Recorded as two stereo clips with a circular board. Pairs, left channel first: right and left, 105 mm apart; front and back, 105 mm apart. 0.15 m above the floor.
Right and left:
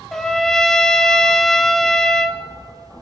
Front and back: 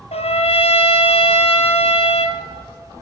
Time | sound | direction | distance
0.1 | a trumpet | 5° right | 0.9 m